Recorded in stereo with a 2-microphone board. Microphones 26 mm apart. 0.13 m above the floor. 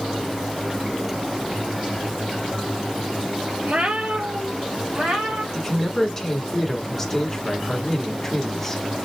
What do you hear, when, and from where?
3.6 s a cat meowing: 60° right (ahead or behind), 1.0 m; by 5.4 s 70° right (ahead or behind), 3 m
5.5 s a man speaking: 10° left (ahead or behind), 1.2 m